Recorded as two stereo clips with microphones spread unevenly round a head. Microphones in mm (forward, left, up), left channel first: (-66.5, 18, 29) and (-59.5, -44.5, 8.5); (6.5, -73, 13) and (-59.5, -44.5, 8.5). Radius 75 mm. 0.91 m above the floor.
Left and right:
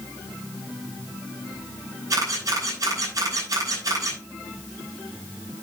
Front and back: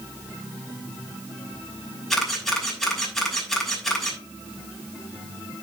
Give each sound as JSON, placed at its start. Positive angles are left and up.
{"t": 2.1, "sound": "a camera shutter", "azimuth_deg": -110, "distance_m": 6.0}